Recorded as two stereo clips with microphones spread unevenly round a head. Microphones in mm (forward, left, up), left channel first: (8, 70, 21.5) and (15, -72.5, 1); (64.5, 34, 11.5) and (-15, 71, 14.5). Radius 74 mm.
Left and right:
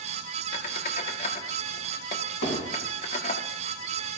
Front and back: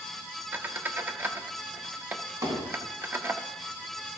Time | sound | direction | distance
0.5 | a squeak | 100° left | 0.9 m
2.4 | hammering | 110° left | 5 m